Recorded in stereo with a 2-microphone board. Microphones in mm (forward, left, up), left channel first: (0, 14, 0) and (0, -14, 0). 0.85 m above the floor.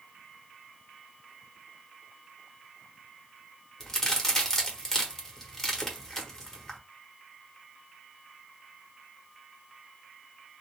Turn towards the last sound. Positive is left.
turn(degrees=15)  # may be behind; listen again after turning